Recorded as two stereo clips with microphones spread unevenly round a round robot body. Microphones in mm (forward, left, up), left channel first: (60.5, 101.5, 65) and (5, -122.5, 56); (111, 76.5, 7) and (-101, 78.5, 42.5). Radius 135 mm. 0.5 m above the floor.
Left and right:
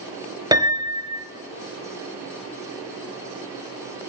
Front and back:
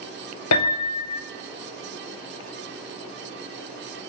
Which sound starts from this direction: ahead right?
A piano, at 0.5 s.